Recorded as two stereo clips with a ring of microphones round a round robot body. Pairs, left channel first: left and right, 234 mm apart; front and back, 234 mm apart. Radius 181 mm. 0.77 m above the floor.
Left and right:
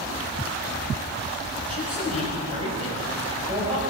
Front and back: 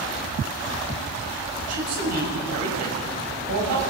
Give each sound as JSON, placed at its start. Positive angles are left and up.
{"t": 1.7, "sound": "a man speaking", "azimuth_deg": -165, "distance_m": 6.0}